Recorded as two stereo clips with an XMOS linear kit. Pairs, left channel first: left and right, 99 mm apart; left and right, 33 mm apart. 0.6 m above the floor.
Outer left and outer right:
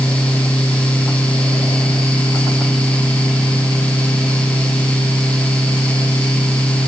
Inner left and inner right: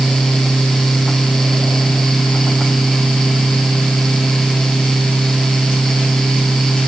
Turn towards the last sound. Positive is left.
No sound to turn to.